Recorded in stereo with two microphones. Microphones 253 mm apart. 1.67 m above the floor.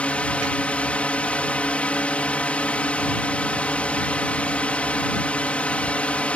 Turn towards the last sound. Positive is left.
turn(degrees=5)  # may be behind; listen again after turning